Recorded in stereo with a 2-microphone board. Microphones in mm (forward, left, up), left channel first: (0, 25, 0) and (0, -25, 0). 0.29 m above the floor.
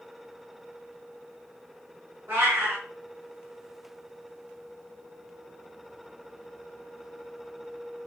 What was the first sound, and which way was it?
A cat meowing, 45° right (ahead or behind).